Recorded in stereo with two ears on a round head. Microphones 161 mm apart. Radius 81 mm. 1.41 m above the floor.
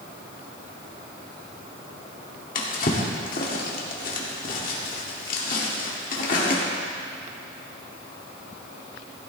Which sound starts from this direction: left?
A drawer, at 2.5 s.